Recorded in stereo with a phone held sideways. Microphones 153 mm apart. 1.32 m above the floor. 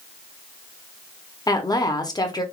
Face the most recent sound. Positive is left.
turn(degrees=25)  # may be behind; listen again after turning